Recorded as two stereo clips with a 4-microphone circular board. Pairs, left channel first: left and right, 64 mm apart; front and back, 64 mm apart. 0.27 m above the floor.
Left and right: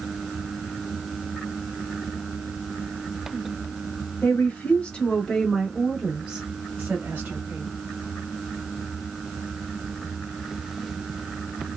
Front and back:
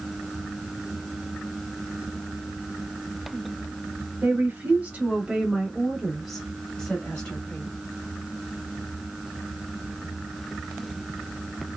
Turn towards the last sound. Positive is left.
turn(degrees=-60)